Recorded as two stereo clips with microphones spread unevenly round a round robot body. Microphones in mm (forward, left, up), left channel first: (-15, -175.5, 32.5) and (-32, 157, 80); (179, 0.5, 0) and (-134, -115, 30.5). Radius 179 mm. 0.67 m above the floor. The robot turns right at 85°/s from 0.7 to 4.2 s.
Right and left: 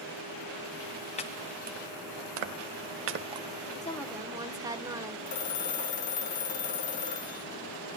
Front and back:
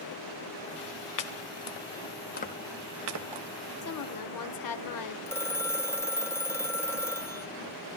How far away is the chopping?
About 1.4 m.